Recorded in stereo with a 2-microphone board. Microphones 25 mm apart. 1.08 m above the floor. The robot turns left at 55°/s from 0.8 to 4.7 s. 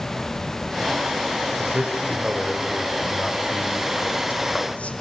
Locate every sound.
1.6 s a man speaking: 60° right (ahead or behind), 6 m; by 4.9 s 65° left (ahead or behind), 6 m